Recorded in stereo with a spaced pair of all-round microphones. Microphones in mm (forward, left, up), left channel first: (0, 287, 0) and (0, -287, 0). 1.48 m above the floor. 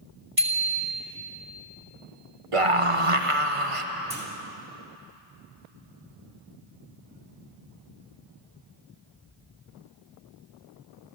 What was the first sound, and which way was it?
A bicycle bell, 65° right (ahead or behind).